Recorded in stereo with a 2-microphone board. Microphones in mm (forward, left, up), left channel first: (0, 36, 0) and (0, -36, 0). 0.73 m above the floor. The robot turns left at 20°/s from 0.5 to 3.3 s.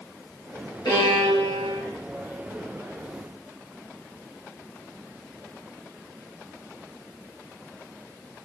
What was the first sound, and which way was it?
A violin, 70° left (ahead or behind).